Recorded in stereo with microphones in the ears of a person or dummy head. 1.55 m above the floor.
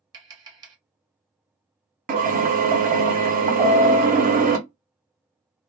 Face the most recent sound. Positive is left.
turn(degrees=-20)  # may be behind; listen again after turning